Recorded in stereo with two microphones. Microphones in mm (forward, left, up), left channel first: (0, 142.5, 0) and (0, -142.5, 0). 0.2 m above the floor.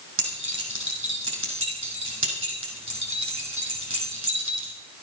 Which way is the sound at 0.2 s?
45° right (ahead or behind).